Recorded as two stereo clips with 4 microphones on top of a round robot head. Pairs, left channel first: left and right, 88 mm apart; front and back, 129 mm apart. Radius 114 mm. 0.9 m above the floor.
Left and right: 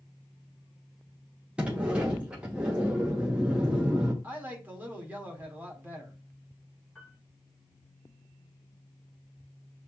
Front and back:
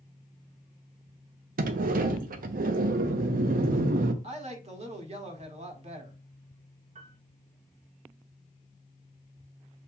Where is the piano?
170° left, 1.5 m.